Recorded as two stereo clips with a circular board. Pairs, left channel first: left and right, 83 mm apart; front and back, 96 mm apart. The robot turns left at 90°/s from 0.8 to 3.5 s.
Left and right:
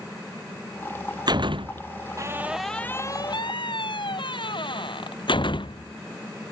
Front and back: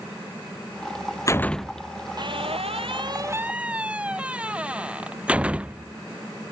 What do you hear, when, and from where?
1.3 s a door slam: 55° right; by 6.5 s 105° left